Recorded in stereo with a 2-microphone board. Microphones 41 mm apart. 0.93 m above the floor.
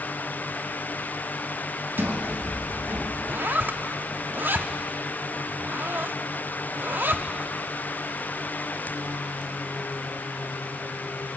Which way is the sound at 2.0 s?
65° right (ahead or behind).